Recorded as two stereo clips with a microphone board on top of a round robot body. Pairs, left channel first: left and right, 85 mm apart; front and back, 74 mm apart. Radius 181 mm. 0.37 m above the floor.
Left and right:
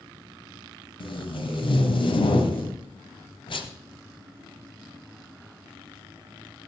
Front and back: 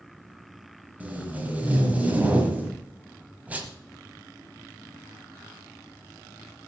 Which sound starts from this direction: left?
Tape being pulled, at 1.0 s.